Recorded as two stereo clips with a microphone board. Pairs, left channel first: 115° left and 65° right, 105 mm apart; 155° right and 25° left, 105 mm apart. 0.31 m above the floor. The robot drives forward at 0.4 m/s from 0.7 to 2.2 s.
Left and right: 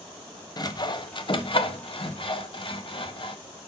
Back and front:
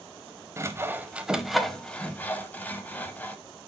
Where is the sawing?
80° left, 0.7 m; by 3.4 s 135° left, 0.8 m.